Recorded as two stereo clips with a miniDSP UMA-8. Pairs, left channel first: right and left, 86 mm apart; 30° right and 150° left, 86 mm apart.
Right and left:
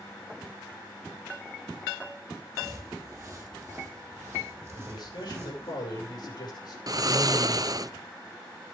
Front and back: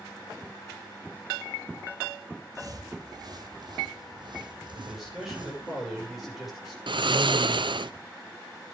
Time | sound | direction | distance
2.5 | footsteps | 130° left | 2 m
4.7 | a man speaking | 120° right | 6.5 m
6.9 | snoring | 130° left | 0.5 m